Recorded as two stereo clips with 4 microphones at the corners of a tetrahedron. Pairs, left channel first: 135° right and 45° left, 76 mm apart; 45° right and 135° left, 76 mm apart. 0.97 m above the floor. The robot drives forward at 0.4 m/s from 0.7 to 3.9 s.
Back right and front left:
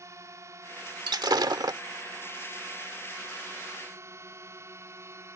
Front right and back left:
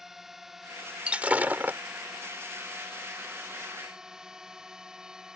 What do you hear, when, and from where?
0.0 s a drone: 50° left; by 5.4 s 60° left
1.1 s breaking glass: 60° left; by 1.8 s 70° left